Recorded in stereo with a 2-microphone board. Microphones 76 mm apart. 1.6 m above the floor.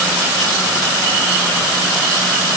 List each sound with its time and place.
Only background noise.